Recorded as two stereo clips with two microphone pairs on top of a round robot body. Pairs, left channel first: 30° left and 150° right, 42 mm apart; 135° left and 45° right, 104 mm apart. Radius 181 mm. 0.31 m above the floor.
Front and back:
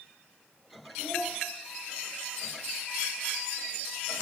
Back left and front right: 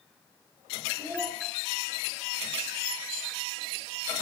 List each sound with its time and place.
1.0 s a child speaking: 75° left, 9.5 m